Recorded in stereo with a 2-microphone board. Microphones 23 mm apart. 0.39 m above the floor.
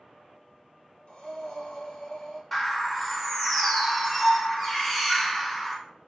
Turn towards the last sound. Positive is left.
turn(degrees=10)  # may be behind; listen again after turning